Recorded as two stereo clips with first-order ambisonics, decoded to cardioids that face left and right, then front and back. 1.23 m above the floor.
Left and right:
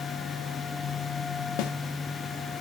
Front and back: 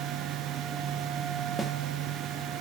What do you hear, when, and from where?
1.6 s a snare drum: 100° left, 1.2 m